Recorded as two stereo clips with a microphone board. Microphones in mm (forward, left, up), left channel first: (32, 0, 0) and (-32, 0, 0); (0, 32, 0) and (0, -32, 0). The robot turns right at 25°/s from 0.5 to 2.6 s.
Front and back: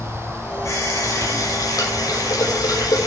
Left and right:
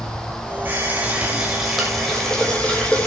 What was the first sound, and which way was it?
A running tap, 35° right.